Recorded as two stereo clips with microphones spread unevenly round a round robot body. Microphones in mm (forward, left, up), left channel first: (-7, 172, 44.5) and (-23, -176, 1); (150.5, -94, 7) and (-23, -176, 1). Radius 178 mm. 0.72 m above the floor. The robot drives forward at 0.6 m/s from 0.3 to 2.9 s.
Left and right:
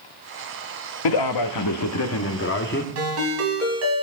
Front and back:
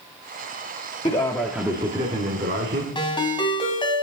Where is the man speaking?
95° left, 0.7 m; by 2.9 s 150° left, 1.4 m.